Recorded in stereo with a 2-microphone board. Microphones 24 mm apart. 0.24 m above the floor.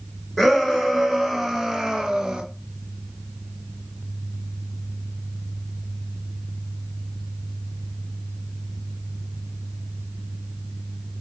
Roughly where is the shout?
Centre.